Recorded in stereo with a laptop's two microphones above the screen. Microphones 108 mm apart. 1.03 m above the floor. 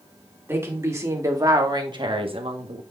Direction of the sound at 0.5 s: 20° right (ahead or behind).